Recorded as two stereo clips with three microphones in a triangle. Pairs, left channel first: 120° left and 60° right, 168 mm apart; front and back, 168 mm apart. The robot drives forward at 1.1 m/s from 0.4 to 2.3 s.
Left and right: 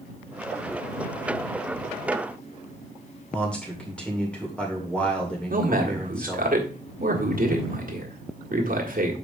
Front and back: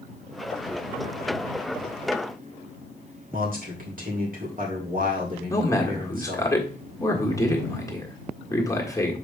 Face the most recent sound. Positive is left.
turn(degrees=-70)